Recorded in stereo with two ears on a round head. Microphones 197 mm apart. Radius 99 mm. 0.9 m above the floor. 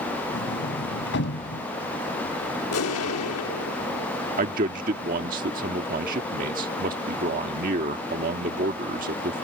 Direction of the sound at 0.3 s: 55° left (ahead or behind).